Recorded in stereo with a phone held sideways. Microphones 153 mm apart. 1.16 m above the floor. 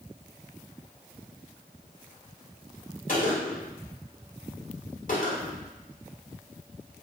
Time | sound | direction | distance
3.1 | a gunshot | 60° left (ahead or behind) | 1.7 m